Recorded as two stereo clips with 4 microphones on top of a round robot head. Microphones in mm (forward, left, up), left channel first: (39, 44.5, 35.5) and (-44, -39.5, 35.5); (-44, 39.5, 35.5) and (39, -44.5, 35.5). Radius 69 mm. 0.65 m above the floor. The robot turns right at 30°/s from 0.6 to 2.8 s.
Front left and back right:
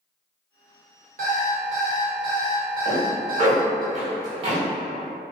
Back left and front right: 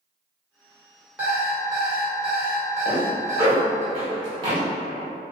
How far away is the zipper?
About 1.7 m.